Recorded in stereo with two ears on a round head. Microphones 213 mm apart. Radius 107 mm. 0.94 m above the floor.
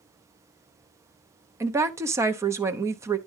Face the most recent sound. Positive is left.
turn(degrees=-10)  # may be behind; listen again after turning